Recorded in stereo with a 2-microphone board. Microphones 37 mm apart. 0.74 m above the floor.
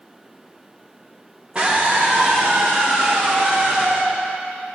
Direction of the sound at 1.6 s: 30° right (ahead or behind).